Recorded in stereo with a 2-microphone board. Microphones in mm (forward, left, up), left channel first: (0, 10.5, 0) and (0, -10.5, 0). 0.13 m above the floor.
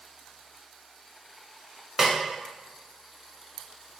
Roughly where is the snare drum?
Centre.